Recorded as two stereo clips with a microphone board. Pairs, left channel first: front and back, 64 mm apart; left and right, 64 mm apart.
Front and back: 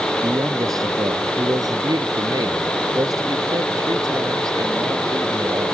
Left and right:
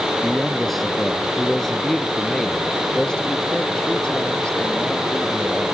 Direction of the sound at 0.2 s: 175° right.